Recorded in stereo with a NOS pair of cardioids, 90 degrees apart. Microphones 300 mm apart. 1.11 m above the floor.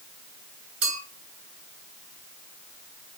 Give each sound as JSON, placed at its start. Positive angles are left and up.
{"t": 0.8, "sound": "a clink", "azimuth_deg": -65, "distance_m": 3.0}